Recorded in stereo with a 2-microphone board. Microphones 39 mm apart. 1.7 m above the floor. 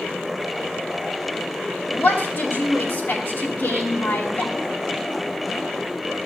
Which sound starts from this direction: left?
A woman speaking, at 1.9 s.